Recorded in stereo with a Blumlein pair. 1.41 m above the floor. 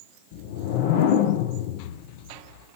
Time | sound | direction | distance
0.3 | a whoosh | 50° left | 0.8 m